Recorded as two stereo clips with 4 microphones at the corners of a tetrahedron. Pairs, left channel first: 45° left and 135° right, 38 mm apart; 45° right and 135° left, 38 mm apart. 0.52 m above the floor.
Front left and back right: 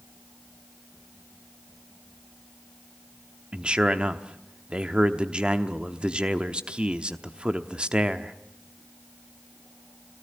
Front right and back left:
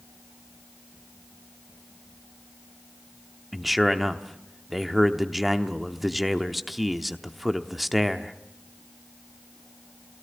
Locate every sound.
3.5 s a man speaking: 140° right, 0.9 m